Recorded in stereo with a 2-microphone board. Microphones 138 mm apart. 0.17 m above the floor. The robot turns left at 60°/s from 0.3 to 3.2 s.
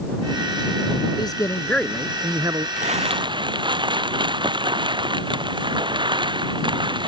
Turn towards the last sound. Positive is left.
turn(degrees=-35)  # may be behind; listen again after turning